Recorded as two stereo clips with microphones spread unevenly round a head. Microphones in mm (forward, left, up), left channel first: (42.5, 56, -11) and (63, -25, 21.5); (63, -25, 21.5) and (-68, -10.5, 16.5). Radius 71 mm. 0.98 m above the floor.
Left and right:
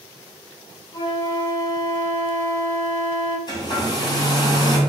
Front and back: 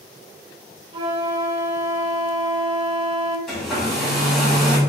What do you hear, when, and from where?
0.9 s a flute: 170° left, 0.7 m
3.5 s a hair dryer: 80° left, 2 m